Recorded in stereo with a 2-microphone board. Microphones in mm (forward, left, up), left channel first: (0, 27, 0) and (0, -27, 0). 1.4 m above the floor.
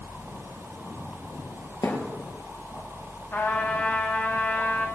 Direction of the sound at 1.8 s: 70° left (ahead or behind).